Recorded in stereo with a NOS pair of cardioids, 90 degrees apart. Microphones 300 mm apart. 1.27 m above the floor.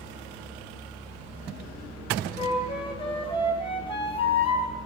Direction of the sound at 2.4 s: 15° left.